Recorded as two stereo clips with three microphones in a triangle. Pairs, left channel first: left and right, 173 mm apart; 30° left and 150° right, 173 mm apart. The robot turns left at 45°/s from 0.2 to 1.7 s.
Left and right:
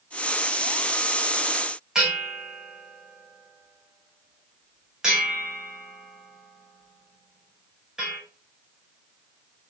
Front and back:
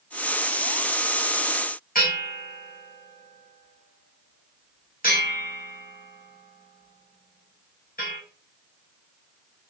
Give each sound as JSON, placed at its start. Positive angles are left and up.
{"t": 1.9, "sound": "a bell", "azimuth_deg": -5, "distance_m": 5.5}